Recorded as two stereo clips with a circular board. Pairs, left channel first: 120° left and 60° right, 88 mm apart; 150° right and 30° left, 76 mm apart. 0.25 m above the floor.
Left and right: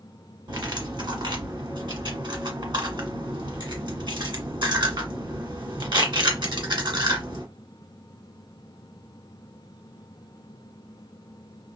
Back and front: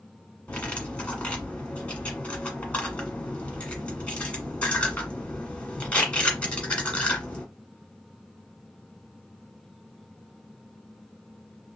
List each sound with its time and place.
0.5 s cutlery clinking: 80° right, 1.5 m